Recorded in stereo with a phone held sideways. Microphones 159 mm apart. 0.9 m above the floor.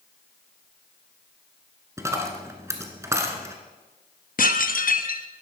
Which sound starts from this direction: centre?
A dropped coin, at 2.0 s.